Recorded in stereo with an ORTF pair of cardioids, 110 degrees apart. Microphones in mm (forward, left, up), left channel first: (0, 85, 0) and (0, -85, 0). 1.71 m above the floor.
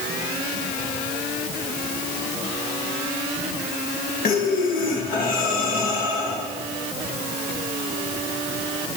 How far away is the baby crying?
No baby crying in this recording.